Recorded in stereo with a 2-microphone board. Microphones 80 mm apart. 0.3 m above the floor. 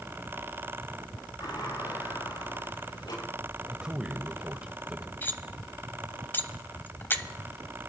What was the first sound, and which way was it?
A sliding door, 65° left (ahead or behind).